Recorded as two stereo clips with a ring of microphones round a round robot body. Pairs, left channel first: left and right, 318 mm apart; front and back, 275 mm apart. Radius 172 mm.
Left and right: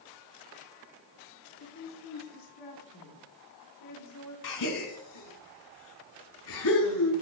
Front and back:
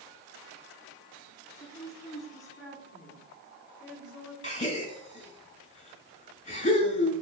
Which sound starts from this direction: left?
A woman speaking, at 1.6 s.